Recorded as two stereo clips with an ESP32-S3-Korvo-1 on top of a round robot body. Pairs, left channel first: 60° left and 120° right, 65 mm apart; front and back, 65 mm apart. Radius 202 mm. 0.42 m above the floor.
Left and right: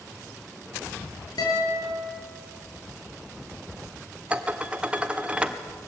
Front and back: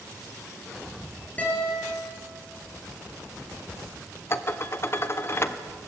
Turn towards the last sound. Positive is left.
turn(degrees=-50)